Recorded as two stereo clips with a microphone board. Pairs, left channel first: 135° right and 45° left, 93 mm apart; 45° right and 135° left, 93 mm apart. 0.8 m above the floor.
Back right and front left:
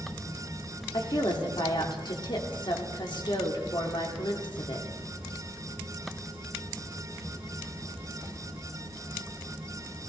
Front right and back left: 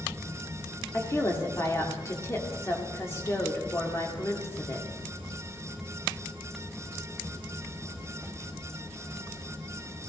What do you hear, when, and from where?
0.9 s a woman speaking: 105° right, 1.8 m